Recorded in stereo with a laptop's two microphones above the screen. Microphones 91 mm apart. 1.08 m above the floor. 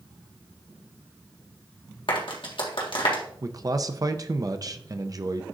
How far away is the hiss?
I don't hear a hiss.